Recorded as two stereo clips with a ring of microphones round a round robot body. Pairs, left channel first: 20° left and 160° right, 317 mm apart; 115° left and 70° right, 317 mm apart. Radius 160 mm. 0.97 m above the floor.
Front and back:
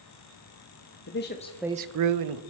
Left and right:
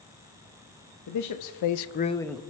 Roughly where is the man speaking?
Left.